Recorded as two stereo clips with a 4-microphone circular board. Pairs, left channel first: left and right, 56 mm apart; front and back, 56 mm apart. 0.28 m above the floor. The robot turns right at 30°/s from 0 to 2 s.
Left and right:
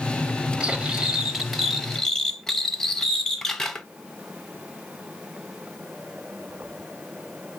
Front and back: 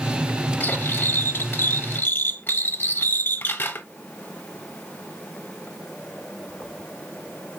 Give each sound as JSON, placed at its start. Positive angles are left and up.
{"t": 0.6, "sound": "cutlery clinking", "azimuth_deg": -30, "distance_m": 0.6}